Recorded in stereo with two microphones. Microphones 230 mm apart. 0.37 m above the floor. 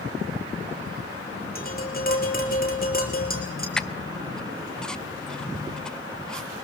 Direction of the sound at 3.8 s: 5° left (ahead or behind).